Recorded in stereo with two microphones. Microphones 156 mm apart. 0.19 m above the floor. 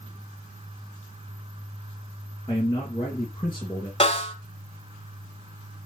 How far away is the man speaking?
About 3 m.